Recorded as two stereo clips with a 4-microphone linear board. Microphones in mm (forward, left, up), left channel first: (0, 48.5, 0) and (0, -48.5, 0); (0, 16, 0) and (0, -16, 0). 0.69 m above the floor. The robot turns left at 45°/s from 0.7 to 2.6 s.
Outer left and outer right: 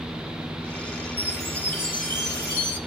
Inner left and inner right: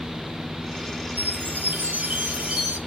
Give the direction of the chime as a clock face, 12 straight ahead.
3 o'clock.